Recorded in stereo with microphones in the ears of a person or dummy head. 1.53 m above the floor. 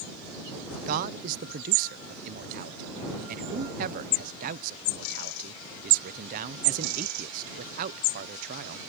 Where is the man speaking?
45° right (ahead or behind).